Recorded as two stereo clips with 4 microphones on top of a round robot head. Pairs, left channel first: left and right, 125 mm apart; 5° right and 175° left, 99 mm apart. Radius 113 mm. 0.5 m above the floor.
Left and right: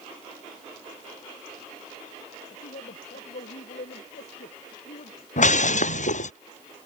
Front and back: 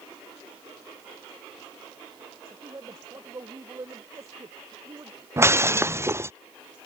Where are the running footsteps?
No running footsteps in this recording.